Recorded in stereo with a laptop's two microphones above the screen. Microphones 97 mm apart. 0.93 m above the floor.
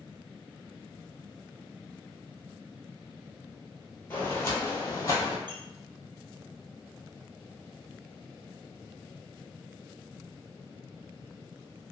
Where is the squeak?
50° right (ahead or behind), 0.6 m.